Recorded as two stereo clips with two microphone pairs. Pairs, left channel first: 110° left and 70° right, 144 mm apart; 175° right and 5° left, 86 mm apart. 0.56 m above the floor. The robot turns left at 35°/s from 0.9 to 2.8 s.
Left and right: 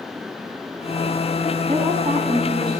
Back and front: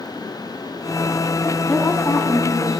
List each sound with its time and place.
1.7 s a woman speaking: 95° right, 5.5 m; by 2.8 s 130° right, 5.5 m